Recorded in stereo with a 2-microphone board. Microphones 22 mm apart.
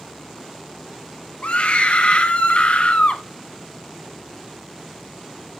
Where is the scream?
65° left (ahead or behind), 1.7 m.